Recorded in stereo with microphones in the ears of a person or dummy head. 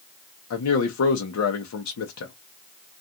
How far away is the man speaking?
About 0.7 m.